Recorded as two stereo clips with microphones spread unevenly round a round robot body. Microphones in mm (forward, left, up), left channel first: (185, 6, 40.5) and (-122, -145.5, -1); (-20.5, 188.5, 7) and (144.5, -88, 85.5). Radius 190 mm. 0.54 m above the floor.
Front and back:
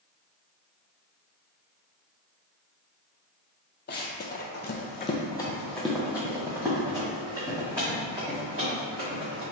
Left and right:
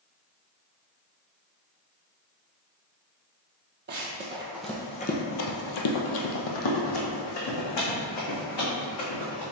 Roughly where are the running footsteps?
Ahead right.